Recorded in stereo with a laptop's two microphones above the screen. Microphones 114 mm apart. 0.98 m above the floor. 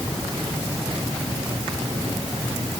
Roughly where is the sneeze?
No sneeze in this recording.